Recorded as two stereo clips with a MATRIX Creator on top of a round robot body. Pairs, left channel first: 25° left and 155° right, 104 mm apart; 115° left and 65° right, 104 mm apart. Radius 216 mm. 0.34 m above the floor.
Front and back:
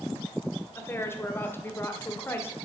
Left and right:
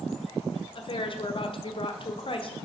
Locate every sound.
0.8 s a woman speaking: 90° left, 1.9 m